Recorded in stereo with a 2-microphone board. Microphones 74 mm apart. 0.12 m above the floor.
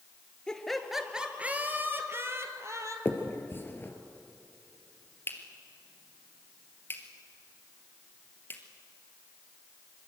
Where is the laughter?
10° left (ahead or behind), 2 m; by 3.0 s 40° right (ahead or behind), 3.5 m.